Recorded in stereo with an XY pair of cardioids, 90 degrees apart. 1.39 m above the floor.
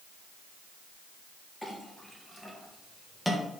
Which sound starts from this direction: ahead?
A clink, at 1.6 s.